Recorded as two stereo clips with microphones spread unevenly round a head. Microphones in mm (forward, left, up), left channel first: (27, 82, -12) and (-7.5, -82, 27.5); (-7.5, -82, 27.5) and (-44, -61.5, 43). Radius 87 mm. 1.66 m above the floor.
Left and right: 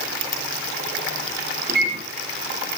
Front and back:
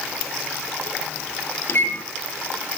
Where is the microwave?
65° right, 3.5 m.